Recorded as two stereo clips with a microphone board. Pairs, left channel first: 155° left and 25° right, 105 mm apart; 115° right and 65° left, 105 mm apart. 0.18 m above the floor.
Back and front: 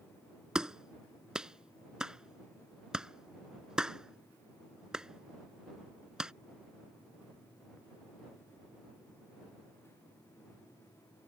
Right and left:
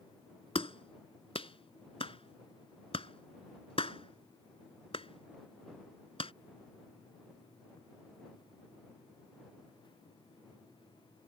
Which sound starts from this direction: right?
A clap, at 0.6 s.